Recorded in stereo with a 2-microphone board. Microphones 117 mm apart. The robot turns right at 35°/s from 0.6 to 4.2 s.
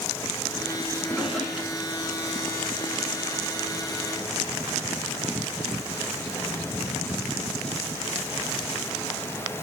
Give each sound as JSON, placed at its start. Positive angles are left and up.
{"t": 1.0, "sound": "a drawer", "side_deg": 15, "distance_m": 1.2}